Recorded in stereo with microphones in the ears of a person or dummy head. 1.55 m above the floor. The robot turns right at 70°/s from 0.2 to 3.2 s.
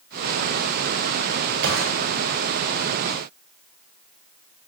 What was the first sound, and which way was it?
A gunshot, 65° right (ahead or behind).